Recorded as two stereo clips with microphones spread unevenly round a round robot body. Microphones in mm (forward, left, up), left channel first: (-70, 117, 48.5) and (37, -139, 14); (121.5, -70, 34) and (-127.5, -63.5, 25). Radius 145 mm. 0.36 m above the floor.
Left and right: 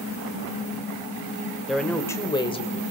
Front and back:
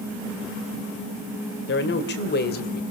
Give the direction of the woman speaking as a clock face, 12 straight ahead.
11 o'clock.